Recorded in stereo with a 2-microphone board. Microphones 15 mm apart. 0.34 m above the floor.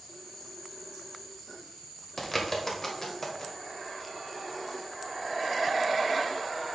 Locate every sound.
2.2 s a bird: 25° left (ahead or behind), 1.3 m